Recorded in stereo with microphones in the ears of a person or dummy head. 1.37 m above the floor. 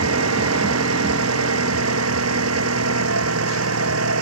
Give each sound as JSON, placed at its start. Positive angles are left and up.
{"t": 0.0, "sound": "an engine running", "side_deg": -85}